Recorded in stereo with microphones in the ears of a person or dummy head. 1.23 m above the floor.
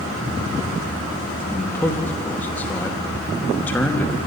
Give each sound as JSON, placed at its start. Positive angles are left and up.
{"t": 1.5, "sound": "a man speaking", "side_deg": 10, "distance_m": 2.5}